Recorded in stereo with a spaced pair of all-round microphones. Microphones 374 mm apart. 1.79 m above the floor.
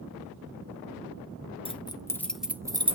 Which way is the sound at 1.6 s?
15° left (ahead or behind).